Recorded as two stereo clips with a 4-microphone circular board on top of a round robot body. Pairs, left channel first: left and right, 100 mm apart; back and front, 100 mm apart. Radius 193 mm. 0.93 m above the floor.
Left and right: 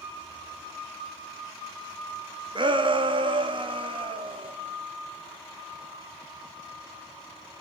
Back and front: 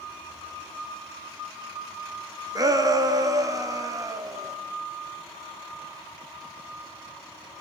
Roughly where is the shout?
Ahead right.